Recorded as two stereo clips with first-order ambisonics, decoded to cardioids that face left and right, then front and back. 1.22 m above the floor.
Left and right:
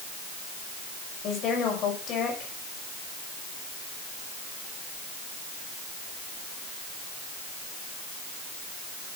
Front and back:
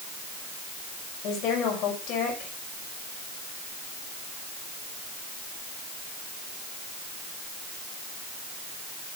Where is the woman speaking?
40° left, 5.5 m.